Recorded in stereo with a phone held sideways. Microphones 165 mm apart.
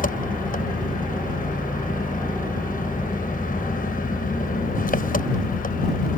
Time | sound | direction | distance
0.0 | an engine running | 55° left (ahead or behind) | ?